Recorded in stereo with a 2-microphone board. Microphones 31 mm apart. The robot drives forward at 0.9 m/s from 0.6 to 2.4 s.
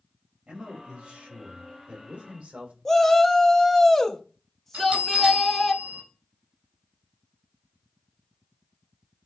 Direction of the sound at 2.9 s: 10° left (ahead or behind).